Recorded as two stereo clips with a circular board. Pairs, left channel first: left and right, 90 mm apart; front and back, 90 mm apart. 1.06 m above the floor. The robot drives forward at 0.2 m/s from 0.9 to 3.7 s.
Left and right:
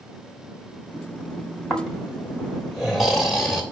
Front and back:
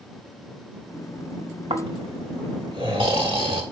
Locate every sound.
1.7 s snoring: straight behind, 2.5 m